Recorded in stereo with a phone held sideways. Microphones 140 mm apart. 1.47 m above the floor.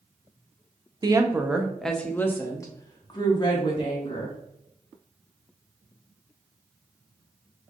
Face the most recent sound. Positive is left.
turn(degrees=40)  # may be behind; listen again after turning